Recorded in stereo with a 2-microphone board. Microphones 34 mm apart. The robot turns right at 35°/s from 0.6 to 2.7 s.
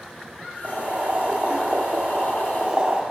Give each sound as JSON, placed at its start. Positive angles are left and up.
{"t": 0.6, "sound": "boiling", "azimuth_deg": -120, "distance_m": 1.5}